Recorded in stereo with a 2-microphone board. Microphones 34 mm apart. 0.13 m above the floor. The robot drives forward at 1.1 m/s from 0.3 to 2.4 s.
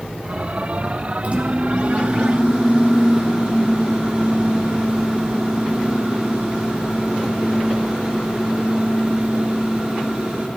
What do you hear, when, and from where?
1.2 s a microwave: 40° right (ahead or behind), 1.7 m; by 10.5 s 35° right (ahead or behind), 2.0 m